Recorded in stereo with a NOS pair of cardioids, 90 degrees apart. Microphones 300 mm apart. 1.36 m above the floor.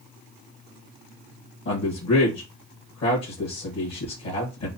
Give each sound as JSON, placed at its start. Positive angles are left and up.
{"t": 1.6, "sound": "a man speaking", "azimuth_deg": 55, "distance_m": 1.3}